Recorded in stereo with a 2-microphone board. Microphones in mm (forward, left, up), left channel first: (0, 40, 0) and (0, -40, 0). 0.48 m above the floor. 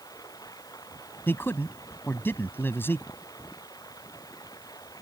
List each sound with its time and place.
0.0 s running water: 55° left (ahead or behind)
1.3 s a man speaking: 30° left (ahead or behind)